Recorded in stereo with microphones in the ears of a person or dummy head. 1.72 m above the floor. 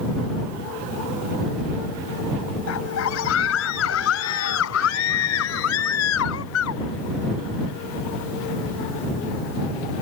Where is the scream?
75° left (ahead or behind); by 6.8 s 80° left.